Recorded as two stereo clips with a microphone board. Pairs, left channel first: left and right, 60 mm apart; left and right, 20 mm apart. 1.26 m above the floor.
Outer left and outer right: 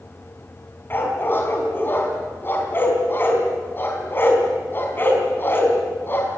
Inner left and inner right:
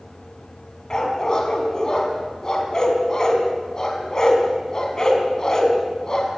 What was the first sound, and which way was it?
A dog barking, 35° left (ahead or behind).